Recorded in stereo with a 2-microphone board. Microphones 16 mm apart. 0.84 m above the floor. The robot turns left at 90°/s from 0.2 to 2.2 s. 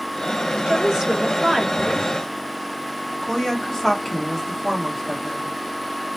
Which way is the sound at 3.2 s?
30° left (ahead or behind).